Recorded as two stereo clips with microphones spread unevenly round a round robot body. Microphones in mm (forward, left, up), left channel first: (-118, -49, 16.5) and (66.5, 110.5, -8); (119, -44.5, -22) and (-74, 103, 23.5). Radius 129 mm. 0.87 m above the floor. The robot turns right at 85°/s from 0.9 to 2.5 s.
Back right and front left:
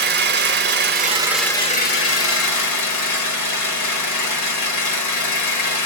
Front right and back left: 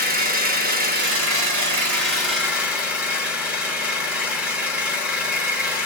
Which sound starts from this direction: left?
An engine running, at 0.0 s.